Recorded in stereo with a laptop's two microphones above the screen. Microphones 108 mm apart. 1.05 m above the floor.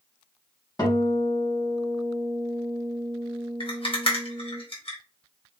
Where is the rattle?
55° left (ahead or behind), 1.0 m.